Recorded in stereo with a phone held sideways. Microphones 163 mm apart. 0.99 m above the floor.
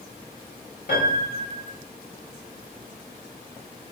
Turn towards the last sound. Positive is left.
turn(degrees=80)